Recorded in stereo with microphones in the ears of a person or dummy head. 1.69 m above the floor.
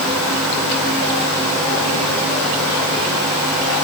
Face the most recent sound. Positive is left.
No sound to turn to.